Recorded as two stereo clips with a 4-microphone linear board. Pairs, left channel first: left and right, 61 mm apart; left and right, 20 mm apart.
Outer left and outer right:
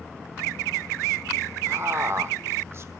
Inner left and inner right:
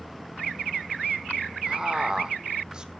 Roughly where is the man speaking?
Right.